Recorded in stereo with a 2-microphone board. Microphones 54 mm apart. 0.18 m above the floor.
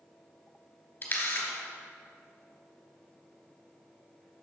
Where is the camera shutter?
35° left (ahead or behind), 2.5 m.